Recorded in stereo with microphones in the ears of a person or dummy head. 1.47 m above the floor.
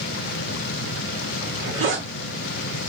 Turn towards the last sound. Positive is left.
turn(degrees=-70)  # may be behind; listen again after turning